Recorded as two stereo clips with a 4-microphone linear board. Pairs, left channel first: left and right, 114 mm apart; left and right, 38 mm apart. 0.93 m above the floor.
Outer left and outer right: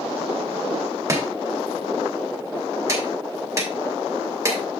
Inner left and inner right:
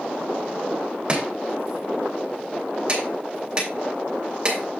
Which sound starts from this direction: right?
Chopping, at 1.1 s.